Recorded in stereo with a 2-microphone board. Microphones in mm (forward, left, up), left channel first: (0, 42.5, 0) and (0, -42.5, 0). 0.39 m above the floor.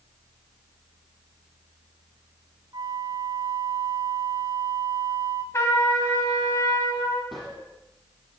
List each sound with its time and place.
2.7 s a flute: 60° right (ahead or behind), 1.9 m
5.5 s a trumpet: 35° left (ahead or behind), 3.5 m
7.3 s a gunshot: centre (ahead or behind), 7.5 m